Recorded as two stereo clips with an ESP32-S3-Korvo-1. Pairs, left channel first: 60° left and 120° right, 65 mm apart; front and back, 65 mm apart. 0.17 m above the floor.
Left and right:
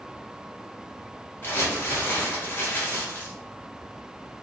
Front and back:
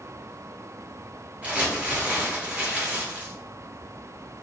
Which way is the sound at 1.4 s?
115° left.